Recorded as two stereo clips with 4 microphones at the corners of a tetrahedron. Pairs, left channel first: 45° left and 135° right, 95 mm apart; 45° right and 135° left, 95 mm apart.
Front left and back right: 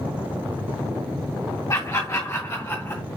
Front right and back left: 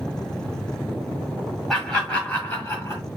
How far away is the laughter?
About 1.5 m.